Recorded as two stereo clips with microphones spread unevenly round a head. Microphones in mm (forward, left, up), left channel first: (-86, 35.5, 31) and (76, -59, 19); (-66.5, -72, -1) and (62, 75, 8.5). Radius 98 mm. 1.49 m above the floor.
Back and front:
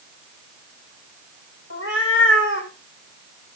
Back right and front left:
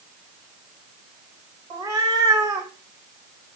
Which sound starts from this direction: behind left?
A cat meowing, at 1.7 s.